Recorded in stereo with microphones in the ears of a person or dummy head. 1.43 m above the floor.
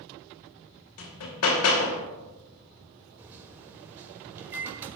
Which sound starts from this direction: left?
Hammering, at 1.0 s.